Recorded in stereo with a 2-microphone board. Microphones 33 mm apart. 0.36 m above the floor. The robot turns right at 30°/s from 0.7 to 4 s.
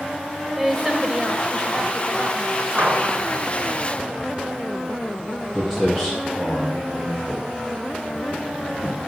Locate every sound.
0.6 s a woman speaking: 170° right, 1.5 m; by 3.3 s 90° right, 1.5 m
2.8 s a gunshot: 65° right (ahead or behind), 3.5 m; by 3.2 s 70° right (ahead or behind), 3.5 m
5.5 s footsteps: 5° right (ahead or behind), 8 m; by 9.0 s 5° left (ahead or behind), 4.5 m